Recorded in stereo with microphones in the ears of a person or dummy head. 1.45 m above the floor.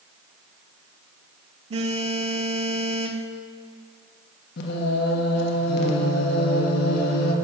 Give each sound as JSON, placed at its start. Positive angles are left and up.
{"t": 1.7, "sound": "a phone buzzing", "side_deg": -30, "distance_m": 0.6}
{"t": 4.6, "sound": "singing", "side_deg": 60, "distance_m": 1.3}